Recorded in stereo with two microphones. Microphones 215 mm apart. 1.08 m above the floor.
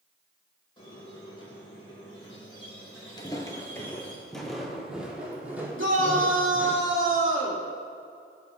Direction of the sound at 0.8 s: 25° left (ahead or behind).